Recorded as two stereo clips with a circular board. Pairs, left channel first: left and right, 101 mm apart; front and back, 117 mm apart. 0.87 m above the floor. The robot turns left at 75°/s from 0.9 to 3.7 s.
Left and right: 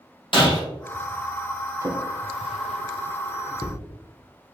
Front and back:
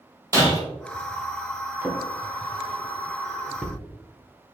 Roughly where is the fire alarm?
I don't hear a fire alarm.